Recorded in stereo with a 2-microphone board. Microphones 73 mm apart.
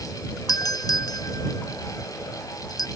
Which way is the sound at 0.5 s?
65° left (ahead or behind).